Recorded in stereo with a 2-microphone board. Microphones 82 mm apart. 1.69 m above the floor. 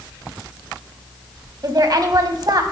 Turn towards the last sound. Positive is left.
turn(degrees=-50)  # may be behind; listen again after turning